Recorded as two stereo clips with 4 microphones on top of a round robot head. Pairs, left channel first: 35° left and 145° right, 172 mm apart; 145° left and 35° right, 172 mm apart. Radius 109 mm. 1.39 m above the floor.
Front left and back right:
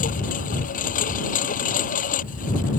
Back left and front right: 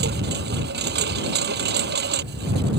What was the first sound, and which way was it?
A lawn mower, 10° right.